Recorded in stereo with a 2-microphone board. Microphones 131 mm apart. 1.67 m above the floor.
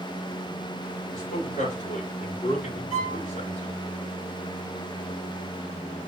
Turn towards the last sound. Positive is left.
turn(degrees=80)